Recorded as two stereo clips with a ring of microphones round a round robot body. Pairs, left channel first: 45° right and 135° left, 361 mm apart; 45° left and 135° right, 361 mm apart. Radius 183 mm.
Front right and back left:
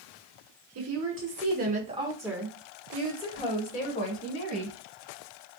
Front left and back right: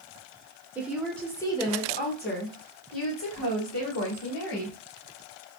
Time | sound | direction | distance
0.8 | a woman speaking | 140° left | 1.5 m